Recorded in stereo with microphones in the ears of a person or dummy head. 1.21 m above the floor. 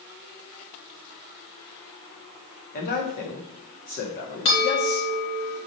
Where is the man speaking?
40° left (ahead or behind), 1.6 m.